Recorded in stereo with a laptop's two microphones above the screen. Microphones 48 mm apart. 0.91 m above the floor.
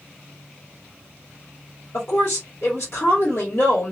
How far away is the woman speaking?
About 1.8 m.